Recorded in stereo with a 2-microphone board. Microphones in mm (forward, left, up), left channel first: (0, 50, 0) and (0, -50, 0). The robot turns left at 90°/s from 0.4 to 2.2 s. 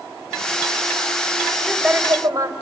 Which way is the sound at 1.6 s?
10° left.